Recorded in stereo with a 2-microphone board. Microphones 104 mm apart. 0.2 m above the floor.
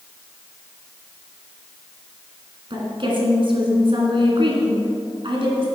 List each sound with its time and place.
2.7 s a woman speaking: 55° right (ahead or behind), 2.5 m